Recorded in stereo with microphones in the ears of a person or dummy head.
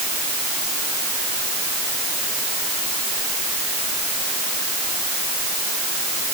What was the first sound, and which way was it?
Only background noise.